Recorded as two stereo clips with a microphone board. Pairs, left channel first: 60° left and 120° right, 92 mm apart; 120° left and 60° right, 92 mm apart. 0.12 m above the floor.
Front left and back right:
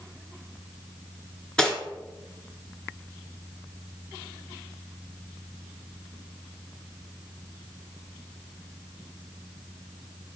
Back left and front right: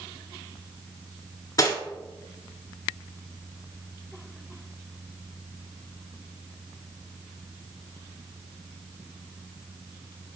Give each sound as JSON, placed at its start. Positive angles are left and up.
{"t": 1.6, "sound": "cutlery clinking", "azimuth_deg": 140, "distance_m": 0.8}